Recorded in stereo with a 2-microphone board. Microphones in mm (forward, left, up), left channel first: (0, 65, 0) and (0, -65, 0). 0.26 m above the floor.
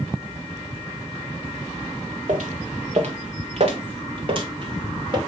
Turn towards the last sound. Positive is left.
turn(degrees=-40)  # may be behind; listen again after turning